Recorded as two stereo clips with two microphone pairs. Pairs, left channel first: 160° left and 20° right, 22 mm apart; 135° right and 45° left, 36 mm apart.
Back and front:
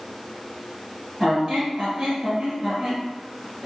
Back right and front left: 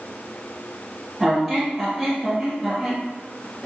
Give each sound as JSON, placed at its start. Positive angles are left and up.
{"t": 1.2, "sound": "a squeak", "azimuth_deg": -40, "distance_m": 2.0}